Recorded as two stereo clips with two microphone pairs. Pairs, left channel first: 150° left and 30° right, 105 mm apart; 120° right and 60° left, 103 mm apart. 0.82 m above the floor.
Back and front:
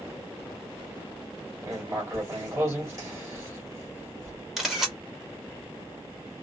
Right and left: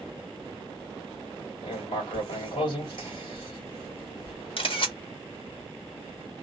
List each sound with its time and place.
1.6 s writing: 95° right, 2.0 m
4.6 s a camera shutter: 120° right, 1.4 m